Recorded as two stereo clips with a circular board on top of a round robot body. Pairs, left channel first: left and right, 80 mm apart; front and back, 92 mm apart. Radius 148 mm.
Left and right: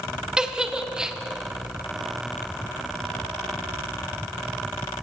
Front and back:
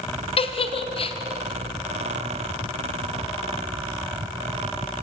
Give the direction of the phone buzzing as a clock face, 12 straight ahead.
No phone buzzing in this recording.